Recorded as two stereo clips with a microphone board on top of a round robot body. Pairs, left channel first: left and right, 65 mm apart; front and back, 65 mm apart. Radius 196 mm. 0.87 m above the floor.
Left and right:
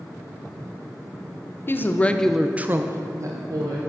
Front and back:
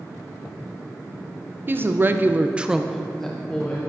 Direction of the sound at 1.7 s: 135° left.